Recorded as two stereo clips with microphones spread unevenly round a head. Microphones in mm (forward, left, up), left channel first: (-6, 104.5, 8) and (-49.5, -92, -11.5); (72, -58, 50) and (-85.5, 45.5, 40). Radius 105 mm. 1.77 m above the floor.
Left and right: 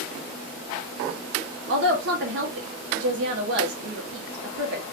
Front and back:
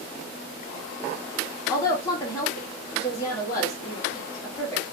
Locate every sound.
1.7 s a woman speaking: 100° right, 0.9 m